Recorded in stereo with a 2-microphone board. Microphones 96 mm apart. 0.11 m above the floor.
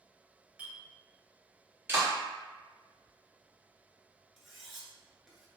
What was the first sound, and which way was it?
A clink, 15° right (ahead or behind).